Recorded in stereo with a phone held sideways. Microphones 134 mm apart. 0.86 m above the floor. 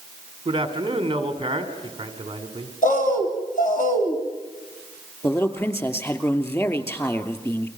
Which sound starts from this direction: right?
A man speaking, at 0.5 s.